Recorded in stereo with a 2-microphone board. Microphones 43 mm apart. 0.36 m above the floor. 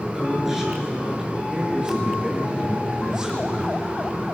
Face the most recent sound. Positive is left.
turn(degrees=-25)  # may be behind; listen again after turning